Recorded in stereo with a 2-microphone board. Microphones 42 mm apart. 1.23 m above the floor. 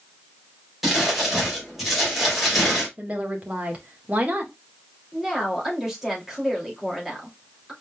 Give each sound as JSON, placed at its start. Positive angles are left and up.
{"t": 0.8, "sound": "crumpling", "side_deg": 0, "distance_m": 3.0}
{"t": 3.0, "sound": "a woman speaking", "side_deg": -35, "distance_m": 1.5}
{"t": 5.1, "sound": "a woman speaking", "side_deg": -5, "distance_m": 2.5}